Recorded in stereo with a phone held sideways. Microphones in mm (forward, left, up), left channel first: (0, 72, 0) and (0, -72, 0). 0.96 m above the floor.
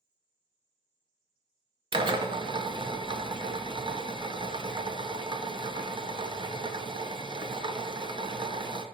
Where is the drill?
35° right (ahead or behind), 0.6 m.